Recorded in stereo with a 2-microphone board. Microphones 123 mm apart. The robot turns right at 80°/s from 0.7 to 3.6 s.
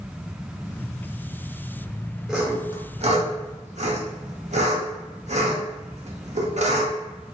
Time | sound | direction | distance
2.3 | sawing | 5° right (ahead or behind) | 0.9 m